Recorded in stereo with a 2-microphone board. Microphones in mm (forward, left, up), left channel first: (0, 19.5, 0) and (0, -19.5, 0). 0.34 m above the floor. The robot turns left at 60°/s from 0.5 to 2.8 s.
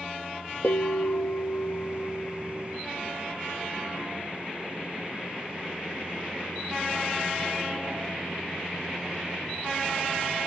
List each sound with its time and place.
0.6 s a bell: 130° left, 3 m; by 2.8 s straight ahead, 3 m